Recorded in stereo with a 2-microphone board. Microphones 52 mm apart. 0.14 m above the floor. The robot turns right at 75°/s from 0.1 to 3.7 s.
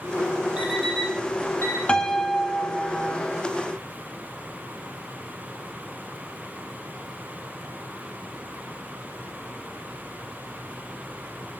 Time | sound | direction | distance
0.6 | an alarm clock | 20° right (ahead or behind) | 3.5 m
1.9 | a piano | 145° left | 1.0 m